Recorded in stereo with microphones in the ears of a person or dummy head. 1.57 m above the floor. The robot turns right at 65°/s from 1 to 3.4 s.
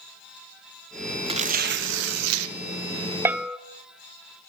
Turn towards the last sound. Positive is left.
turn(degrees=0)  # may be behind; listen again after turning